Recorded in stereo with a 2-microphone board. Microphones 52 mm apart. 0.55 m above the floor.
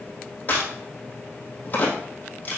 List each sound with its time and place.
0.5 s a crack: 35° left (ahead or behind), 3 m